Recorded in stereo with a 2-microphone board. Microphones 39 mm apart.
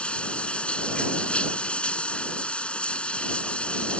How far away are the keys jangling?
No keys jangling in this recording.